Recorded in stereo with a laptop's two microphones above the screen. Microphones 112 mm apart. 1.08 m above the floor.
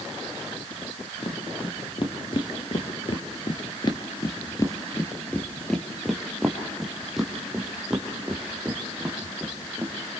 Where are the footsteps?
45° left (ahead or behind), 2.5 m; by 9.9 s 15° right (ahead or behind), 4.5 m.